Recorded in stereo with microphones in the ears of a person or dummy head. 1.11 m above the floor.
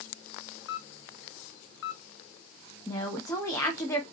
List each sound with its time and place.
0.7 s a camera shutter: 75° left (ahead or behind), 1.3 m
2.9 s a woman speaking: 15° left (ahead or behind), 0.9 m